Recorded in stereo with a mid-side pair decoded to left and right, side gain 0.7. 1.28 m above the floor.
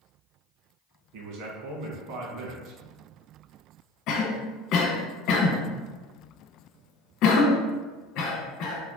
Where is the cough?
60° left, 1.1 m.